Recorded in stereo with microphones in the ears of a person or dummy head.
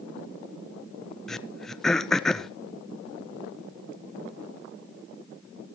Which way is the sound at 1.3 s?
5° left (ahead or behind).